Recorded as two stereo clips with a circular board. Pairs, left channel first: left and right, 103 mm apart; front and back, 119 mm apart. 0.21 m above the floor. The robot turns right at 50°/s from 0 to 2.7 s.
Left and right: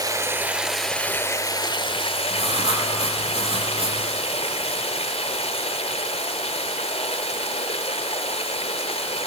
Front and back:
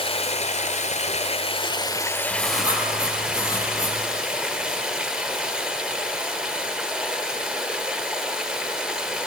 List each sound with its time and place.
0.0 s running water: 40° right, 1.5 m; by 9.3 s 95° left, 1.5 m
2.3 s writing: 80° right, 5.5 m; by 4.0 s 60° right, 5.5 m